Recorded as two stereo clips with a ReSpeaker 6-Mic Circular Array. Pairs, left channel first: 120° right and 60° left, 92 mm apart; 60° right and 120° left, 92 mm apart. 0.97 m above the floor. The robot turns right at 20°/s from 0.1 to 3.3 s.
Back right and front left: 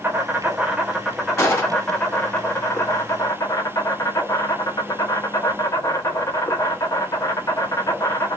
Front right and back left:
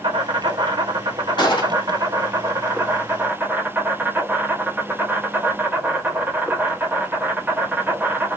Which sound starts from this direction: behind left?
An insect, at 0.0 s.